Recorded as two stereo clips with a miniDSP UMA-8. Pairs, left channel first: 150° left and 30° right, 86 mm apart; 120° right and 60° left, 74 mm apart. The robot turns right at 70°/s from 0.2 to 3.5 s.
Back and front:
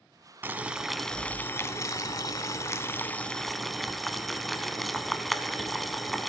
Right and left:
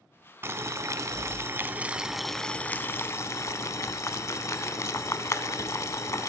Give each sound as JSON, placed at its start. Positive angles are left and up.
{"t": 0.4, "sound": "boiling", "azimuth_deg": 25, "distance_m": 0.6}